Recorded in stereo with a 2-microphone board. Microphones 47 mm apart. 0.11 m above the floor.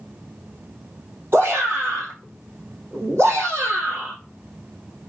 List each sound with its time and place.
1.3 s a shout: 55° right (ahead or behind), 3 m